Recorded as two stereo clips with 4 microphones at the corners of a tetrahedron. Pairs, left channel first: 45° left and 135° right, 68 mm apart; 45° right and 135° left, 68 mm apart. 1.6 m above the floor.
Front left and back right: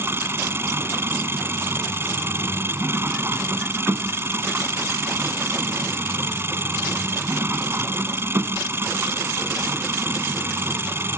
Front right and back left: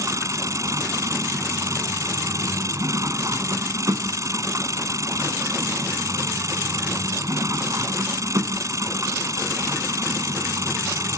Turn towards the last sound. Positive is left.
turn(degrees=170)